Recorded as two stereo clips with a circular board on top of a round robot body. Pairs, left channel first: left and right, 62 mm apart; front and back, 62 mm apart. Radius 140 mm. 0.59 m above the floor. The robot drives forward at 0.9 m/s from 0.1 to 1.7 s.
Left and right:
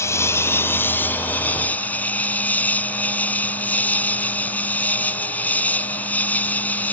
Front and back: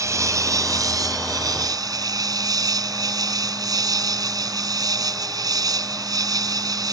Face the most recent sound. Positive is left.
turn(degrees=155)